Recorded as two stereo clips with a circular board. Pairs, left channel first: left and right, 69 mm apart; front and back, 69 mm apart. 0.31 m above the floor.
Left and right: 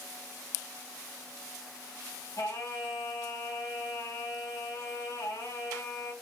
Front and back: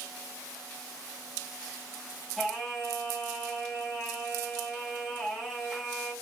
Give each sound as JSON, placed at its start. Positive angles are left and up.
{"t": 2.4, "sound": "singing", "azimuth_deg": 95, "distance_m": 2.5}